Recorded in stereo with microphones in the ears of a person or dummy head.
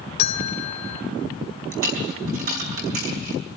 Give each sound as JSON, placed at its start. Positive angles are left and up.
{"t": 0.2, "sound": "a bell", "side_deg": 45, "distance_m": 1.4}
{"t": 1.7, "sound": "a dropped coin", "side_deg": -55, "distance_m": 4.0}